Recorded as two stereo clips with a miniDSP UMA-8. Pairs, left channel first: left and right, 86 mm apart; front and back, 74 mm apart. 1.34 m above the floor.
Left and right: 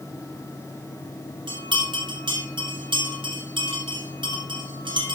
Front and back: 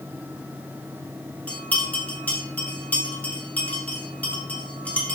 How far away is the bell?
About 6.5 m.